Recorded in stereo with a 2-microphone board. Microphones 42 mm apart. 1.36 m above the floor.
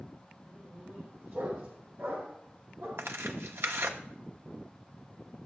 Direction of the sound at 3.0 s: 75° right (ahead or behind).